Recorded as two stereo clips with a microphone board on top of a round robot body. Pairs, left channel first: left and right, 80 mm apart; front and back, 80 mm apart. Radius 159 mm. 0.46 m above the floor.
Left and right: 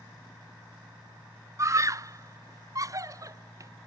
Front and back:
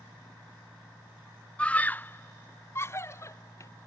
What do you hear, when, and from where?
1.6 s a scream: 70° right; by 3.7 s 50° right